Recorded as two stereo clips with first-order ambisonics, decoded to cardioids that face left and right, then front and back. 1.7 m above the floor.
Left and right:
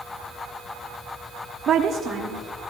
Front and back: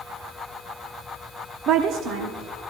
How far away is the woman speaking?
About 0.8 m.